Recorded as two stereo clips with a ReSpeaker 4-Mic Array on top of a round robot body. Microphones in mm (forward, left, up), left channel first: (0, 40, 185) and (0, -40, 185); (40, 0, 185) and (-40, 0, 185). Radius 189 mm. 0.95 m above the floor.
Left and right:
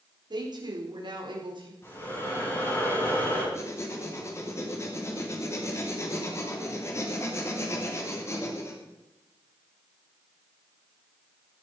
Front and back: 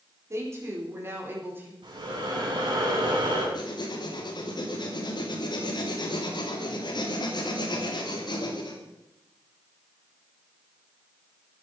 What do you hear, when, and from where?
0.3 s a woman speaking: 125° right, 4 m; by 1.7 s 115° right, 4.5 m
1.8 s breathing: 150° left, 6.5 m
3.5 s writing: 35° left, 3 m